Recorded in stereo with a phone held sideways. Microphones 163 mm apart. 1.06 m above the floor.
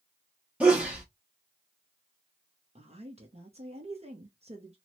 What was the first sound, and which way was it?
A sneeze, 10° right (ahead or behind).